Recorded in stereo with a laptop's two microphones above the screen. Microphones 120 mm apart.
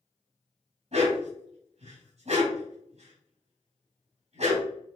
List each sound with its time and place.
0.9 s a dog barking: 70° right (ahead or behind), 2 m